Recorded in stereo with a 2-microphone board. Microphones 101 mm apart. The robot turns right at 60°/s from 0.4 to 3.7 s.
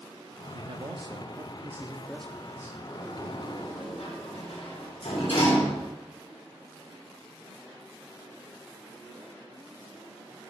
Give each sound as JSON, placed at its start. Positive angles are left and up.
{"t": 0.5, "sound": "a man speaking", "azimuth_deg": -95, "distance_m": 0.8}
{"t": 2.9, "sound": "a sliding door", "side_deg": 40, "distance_m": 6.0}